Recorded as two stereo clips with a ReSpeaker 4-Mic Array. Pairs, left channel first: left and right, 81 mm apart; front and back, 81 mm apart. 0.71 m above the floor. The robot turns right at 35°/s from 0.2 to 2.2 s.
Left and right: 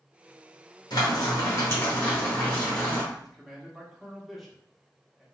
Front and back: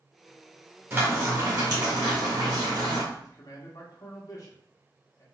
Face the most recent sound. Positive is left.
turn(degrees=0)